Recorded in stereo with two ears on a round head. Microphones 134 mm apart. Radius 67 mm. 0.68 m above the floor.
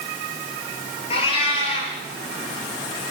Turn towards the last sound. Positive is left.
turn(degrees=40)  # may be behind; listen again after turning